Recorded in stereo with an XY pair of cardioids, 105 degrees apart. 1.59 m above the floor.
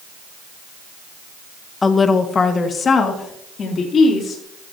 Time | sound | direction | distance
1.8 | a woman speaking | 25° left | 1.3 m